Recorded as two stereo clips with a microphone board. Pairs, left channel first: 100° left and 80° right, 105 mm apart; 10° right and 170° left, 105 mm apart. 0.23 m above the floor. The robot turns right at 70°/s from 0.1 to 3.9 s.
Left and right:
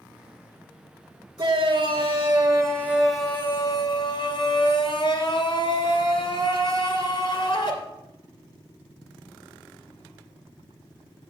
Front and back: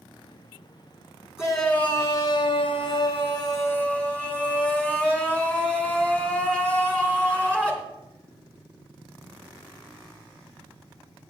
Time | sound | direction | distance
1.4 | a shout | 110° right | 2.5 m